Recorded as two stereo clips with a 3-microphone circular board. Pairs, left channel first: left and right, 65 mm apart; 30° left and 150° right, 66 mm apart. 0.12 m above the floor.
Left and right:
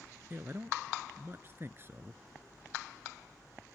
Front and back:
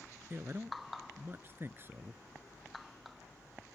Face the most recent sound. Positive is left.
turn(degrees=-120)